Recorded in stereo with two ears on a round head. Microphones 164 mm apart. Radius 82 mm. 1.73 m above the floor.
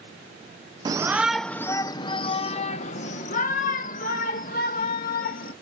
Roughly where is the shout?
Right.